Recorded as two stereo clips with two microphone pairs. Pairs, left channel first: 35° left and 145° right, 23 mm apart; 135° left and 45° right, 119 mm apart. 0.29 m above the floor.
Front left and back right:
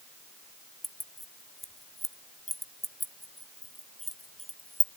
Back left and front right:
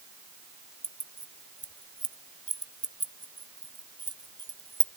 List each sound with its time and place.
0.8 s keys jangling: 65° right, 0.8 m